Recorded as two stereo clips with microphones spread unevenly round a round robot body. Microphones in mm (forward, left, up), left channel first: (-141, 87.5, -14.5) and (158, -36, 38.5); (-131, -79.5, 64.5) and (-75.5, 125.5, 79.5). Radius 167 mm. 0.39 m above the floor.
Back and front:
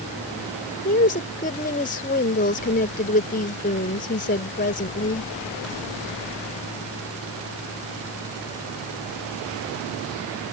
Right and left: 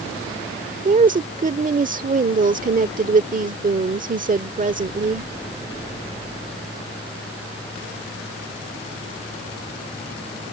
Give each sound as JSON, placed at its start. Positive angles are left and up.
{"t": 0.8, "sound": "a woman speaking", "azimuth_deg": 110}